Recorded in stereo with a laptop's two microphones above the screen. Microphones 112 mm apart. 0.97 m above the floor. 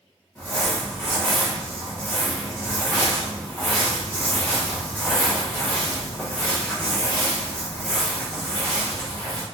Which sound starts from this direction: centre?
Crumpling, at 0.3 s.